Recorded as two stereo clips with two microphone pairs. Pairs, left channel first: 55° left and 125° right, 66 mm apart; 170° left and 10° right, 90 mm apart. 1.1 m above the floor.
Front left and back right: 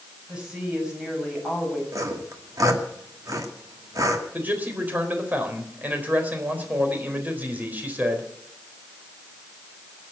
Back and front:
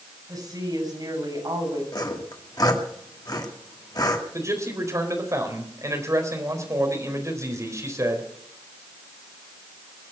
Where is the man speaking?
65° right, 4 m.